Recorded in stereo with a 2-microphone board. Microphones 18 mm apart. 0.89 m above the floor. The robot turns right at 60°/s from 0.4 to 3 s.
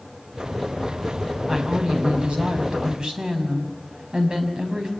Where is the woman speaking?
150° right, 5.5 m; by 4.9 s 55° right, 5.5 m.